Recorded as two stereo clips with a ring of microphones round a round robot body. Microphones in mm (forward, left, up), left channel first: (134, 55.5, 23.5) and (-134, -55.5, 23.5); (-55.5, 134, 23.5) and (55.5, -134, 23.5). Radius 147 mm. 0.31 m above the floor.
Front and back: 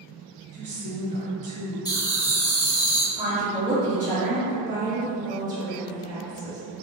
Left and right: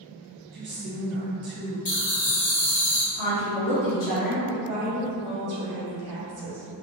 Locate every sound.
0.5 s a woman speaking: 100° right, 1.6 m
1.9 s laughter: 85° left, 1.1 m
3.1 s a woman speaking: 105° left, 1.9 m
4.5 s a woman speaking: 90° right, 1.5 m